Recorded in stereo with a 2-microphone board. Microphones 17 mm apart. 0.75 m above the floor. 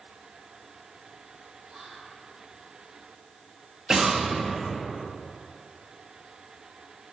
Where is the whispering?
60° right (ahead or behind), 4 m.